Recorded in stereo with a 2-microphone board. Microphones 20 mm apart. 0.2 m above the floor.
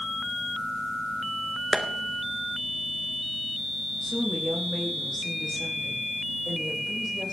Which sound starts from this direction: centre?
A woman speaking, at 4.0 s.